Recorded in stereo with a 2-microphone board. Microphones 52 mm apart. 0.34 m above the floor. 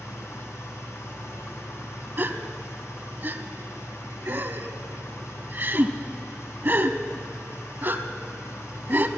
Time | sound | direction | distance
0.0 | an engine running | 65° left (ahead or behind) | 2 m
2.2 | a gasp | 40° right (ahead or behind) | 0.6 m